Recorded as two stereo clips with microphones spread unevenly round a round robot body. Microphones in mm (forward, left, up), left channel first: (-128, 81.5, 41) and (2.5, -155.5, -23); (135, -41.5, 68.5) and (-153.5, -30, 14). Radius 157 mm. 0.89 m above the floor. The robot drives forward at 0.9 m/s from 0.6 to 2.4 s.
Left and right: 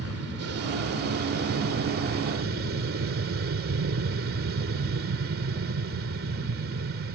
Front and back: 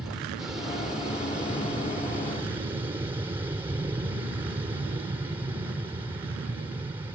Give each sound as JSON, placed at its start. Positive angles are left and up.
{"t": 0.0, "sound": "an aircraft", "azimuth_deg": -100}